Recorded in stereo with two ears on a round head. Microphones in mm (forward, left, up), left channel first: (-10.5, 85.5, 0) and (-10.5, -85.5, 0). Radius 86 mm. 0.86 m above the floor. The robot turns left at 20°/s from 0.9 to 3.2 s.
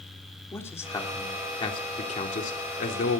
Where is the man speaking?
165° left, 3 m; by 3.2 s 120° left, 3 m.